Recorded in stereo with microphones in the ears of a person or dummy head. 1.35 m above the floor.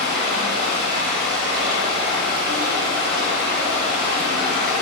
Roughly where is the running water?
Right.